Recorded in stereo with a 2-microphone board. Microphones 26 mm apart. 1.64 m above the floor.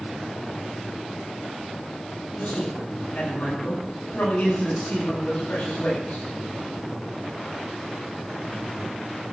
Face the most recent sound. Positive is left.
turn(degrees=85)